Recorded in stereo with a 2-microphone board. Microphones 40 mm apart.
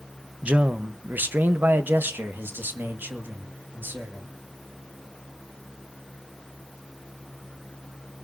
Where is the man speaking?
30° right (ahead or behind), 0.8 m; by 4.3 s 55° right (ahead or behind), 2.5 m.